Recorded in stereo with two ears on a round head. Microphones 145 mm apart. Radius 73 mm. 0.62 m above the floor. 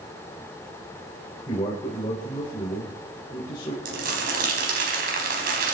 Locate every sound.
1.5 s a man speaking: 25° left (ahead or behind), 2.5 m
3.9 s crumpling: 65° right (ahead or behind), 4 m